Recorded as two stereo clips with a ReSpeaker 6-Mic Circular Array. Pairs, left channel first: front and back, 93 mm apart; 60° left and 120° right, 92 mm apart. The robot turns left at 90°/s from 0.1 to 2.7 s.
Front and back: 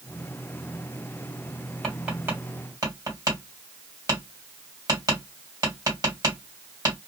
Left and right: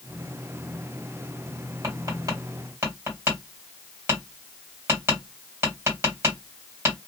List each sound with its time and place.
1.8 s tapping: 90° right, 2 m; by 7.0 s 165° right, 2 m